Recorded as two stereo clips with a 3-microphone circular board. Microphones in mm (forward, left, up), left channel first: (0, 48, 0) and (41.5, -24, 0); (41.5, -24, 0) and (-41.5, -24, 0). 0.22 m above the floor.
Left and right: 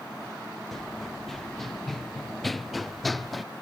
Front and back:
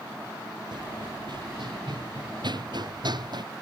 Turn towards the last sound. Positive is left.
turn(degrees=-150)